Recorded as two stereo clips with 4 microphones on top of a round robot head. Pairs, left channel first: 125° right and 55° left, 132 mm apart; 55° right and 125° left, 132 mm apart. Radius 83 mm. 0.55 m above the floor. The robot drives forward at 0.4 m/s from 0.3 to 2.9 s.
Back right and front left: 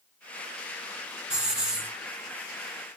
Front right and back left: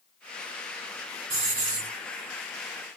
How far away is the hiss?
About 4 m.